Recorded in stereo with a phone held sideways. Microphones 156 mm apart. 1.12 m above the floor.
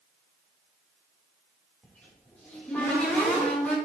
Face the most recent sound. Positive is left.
turn(degrees=10)  # may be behind; listen again after turning